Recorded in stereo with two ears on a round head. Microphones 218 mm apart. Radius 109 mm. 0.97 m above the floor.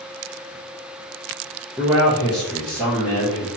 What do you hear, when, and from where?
1.8 s a man speaking: 10° right (ahead or behind), 0.5 m; by 3.5 s 5° left (ahead or behind), 1.5 m